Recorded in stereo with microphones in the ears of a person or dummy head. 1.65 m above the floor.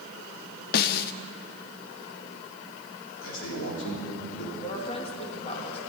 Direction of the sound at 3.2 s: 80° left.